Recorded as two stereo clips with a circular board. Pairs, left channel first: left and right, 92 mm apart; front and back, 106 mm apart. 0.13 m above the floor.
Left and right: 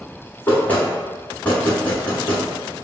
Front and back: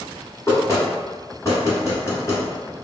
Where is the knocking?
35° left, 1.3 m.